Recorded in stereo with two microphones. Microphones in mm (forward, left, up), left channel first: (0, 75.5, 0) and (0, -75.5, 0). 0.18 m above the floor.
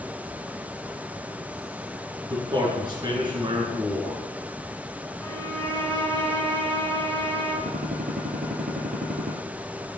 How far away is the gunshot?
About 1.7 m.